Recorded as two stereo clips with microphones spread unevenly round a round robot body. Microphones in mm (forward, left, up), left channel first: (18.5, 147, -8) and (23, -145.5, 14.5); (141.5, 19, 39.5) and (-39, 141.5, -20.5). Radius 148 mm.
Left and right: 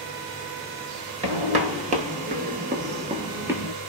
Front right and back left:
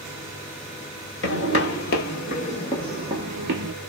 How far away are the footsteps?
About 1.6 m.